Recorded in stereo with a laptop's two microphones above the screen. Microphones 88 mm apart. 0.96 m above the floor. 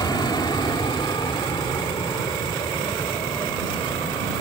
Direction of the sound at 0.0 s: 50° left (ahead or behind).